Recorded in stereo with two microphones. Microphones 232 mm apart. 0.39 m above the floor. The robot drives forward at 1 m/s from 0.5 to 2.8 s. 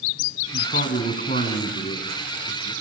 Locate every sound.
0.5 s a man speaking: 45° left (ahead or behind), 4 m; by 2.7 s 30° left (ahead or behind), 6 m